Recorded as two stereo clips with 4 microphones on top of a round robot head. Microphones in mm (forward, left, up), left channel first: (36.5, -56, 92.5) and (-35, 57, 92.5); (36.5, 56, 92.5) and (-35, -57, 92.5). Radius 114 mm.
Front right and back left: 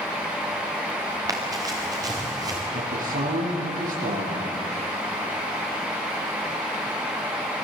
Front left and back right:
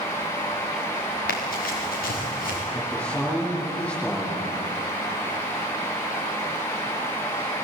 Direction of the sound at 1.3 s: 60° left.